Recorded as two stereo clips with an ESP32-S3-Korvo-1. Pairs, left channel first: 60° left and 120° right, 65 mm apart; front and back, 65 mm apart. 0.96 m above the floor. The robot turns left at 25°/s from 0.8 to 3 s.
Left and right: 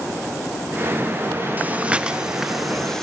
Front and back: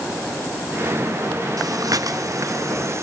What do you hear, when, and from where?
1.6 s breathing: 175° left, 1.1 m; by 3.0 s 140° left, 1.1 m